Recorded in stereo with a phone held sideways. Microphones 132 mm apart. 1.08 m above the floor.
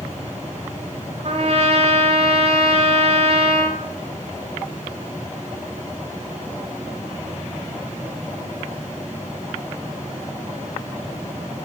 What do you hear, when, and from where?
1.2 s a trumpet: 55° right (ahead or behind), 1.1 m